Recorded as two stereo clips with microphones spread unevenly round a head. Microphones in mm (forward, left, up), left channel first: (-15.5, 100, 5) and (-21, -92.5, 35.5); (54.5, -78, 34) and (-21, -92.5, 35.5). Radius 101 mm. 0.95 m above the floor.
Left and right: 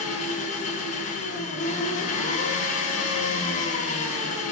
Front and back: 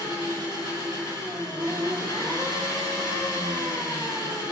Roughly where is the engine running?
Behind left.